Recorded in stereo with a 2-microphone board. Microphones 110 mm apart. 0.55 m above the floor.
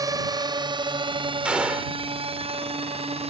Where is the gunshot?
10° right (ahead or behind).